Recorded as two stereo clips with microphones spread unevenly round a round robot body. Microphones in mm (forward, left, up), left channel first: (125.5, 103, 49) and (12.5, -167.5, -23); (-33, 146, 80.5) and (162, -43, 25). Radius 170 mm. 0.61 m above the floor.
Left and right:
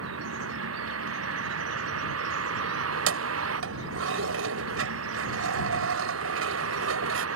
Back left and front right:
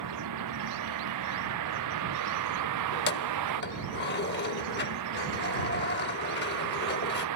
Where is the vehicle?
70° right.